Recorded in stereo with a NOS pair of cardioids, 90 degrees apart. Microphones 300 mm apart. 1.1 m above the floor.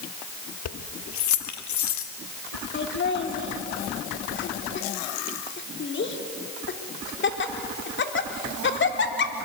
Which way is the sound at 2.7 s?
40° left.